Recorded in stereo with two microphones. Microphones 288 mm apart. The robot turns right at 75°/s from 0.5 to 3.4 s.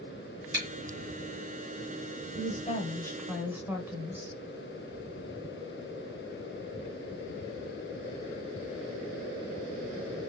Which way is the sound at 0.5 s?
40° right (ahead or behind).